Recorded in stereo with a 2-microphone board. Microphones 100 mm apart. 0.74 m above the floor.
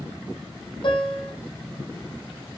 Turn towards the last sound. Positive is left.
turn(degrees=60)  # may be behind; listen again after turning